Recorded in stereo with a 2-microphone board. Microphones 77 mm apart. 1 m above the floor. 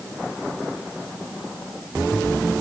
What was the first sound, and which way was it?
Only background noise.